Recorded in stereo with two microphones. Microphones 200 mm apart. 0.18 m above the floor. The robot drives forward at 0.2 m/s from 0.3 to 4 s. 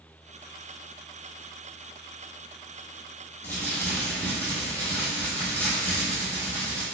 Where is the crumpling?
10° left (ahead or behind), 1.3 m.